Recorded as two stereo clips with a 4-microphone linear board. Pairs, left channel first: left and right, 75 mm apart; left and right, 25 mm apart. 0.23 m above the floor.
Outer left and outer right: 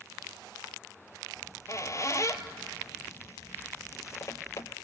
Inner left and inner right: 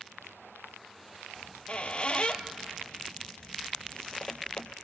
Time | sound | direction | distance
1.4 | a squeak | 45° left (ahead or behind) | 0.9 m